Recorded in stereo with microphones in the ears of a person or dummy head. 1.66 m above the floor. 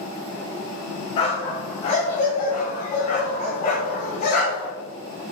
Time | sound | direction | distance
1.2 | a dog barking | 30° left (ahead or behind) | 1.7 m